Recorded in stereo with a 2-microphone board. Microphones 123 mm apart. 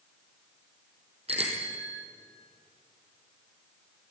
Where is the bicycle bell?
60° right (ahead or behind), 3.5 m.